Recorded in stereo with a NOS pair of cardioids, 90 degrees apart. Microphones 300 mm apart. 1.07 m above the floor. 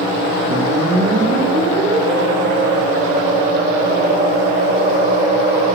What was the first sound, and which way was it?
A whoosh, 35° right.